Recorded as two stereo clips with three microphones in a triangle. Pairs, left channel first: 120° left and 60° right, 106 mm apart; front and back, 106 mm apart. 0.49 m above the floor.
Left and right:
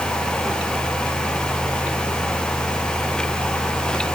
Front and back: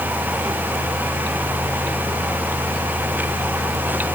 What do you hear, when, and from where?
Only background noise.